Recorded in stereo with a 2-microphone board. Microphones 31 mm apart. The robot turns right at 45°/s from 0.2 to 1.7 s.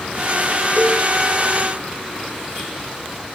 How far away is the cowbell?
About 2.5 m.